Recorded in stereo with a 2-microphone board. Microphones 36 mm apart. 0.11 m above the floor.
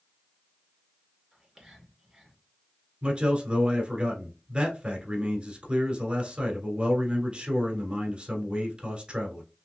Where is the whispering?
5° right (ahead or behind), 1.8 m.